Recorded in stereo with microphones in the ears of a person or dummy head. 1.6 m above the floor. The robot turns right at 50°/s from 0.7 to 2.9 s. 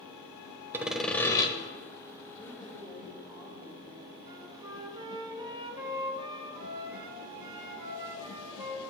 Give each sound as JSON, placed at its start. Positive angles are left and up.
{"t": 0.7, "sound": "sawing", "azimuth_deg": -15, "distance_m": 1.1}
{"t": 2.4, "sound": "a woman speaking", "side_deg": 20, "distance_m": 2.5}
{"t": 4.3, "sound": "a flute", "side_deg": -25, "distance_m": 1.7}